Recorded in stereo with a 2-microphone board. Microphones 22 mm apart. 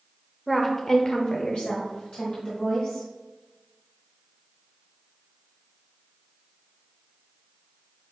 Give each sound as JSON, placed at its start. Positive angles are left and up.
{"t": 0.5, "sound": "a woman speaking", "side_deg": 5, "distance_m": 1.2}